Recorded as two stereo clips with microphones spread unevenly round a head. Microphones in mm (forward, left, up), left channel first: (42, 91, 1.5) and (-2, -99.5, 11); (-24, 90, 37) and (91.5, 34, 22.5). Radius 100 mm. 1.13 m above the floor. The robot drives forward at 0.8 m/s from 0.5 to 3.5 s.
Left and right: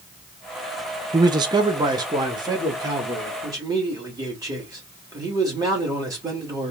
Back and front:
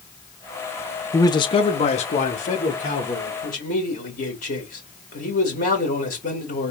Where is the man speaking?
155° right, 0.6 m; by 6.7 s 175° right, 2 m.